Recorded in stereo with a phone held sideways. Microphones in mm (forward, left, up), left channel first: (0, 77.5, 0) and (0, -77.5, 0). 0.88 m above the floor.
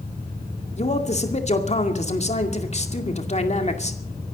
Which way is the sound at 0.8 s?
45° left (ahead or behind).